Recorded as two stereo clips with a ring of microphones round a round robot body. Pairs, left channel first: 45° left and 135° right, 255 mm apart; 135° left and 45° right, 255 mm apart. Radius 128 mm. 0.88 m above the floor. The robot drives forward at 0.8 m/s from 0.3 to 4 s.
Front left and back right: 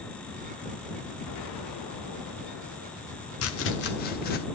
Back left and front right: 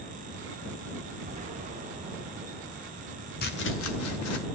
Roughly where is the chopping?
Left.